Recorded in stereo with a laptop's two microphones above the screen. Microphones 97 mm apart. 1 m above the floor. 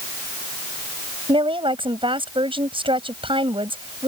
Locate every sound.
1.3 s a woman speaking: 65° right (ahead or behind)